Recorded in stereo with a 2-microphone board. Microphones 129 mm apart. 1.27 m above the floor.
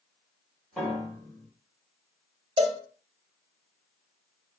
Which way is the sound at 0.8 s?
5° left (ahead or behind).